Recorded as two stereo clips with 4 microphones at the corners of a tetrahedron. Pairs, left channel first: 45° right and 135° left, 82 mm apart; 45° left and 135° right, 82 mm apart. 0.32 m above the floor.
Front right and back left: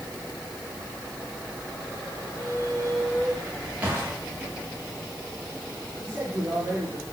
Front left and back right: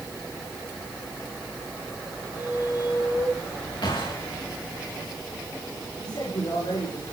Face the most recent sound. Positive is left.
turn(degrees=75)